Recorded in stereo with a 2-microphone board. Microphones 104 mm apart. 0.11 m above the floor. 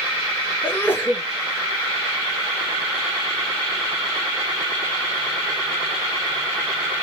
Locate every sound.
0.6 s a sneeze: 20° left (ahead or behind), 1.2 m